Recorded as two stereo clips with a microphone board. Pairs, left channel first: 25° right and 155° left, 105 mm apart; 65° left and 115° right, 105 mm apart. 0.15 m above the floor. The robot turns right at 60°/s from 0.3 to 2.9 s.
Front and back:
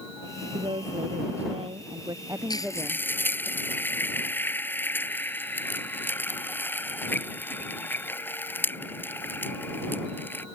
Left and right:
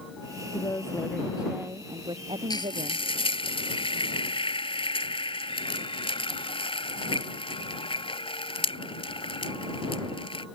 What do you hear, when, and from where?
0.5 s a woman speaking: 115° left; by 3.5 s 105° right
2.5 s frying: 20° left; by 10.5 s 45° left